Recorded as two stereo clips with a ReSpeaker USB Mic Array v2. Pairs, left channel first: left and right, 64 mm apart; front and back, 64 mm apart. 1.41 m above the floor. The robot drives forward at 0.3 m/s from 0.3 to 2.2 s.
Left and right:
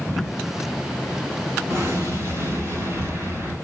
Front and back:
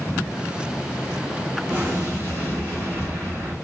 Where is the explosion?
130° right, 2.5 m.